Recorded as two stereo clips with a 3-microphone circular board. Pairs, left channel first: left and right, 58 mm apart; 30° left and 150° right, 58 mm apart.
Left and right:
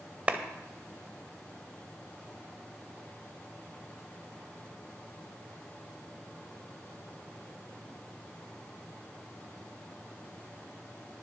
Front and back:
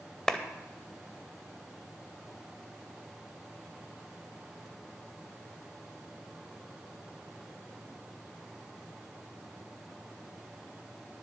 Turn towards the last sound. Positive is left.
turn(degrees=-45)